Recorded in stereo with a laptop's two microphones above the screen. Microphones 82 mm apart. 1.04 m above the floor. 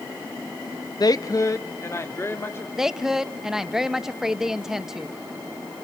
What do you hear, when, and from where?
1.0 s a woman speaking: 50° left (ahead or behind), 0.8 m; by 2.7 s 30° left (ahead or behind), 3 m
2.8 s a woman speaking: 5° right (ahead or behind), 0.7 m